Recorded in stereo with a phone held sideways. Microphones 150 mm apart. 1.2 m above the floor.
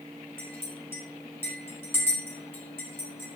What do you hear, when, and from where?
0.4 s a clink: 15° left (ahead or behind), 5 m